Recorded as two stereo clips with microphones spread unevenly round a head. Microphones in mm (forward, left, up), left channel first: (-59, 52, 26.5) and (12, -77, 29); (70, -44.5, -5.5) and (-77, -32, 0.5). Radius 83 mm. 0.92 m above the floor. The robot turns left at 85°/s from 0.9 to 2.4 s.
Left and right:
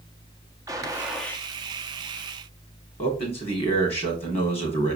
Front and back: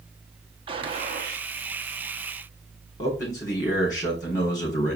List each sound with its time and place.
0.7 s a gunshot: 130° right, 1.4 m; by 1.5 s 175° right, 1.4 m
3.0 s a man speaking: 65° left, 3 m